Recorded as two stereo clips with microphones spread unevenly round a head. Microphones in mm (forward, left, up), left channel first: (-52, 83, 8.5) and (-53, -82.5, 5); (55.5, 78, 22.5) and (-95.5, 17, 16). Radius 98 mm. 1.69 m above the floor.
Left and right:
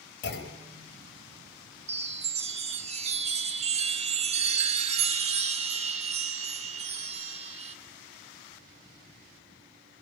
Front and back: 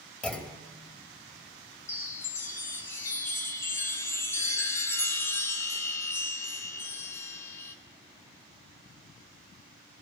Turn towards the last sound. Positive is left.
turn(degrees=-50)